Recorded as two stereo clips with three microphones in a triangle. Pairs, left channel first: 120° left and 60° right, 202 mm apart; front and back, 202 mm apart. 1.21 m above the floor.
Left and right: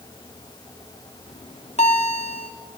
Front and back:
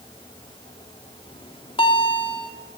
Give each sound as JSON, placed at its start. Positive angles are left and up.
{"t": 1.3, "sound": "a bell", "azimuth_deg": 65, "distance_m": 3.0}